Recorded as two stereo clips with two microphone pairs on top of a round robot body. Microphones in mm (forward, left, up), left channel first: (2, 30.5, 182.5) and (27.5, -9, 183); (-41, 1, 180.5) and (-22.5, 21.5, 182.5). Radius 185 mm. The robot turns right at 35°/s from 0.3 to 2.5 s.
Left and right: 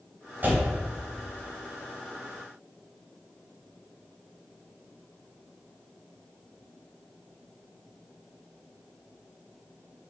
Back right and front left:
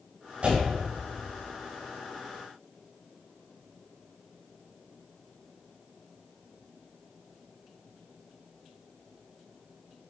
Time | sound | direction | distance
0.4 | a door slam | 5° right | 2.5 m